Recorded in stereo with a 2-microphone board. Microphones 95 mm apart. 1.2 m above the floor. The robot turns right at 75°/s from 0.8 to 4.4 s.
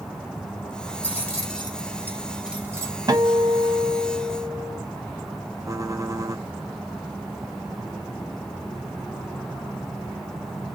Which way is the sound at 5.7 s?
35° right (ahead or behind).